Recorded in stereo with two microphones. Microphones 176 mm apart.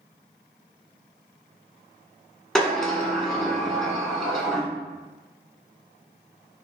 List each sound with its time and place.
2.5 s a sliding door: 5° left (ahead or behind), 1.2 m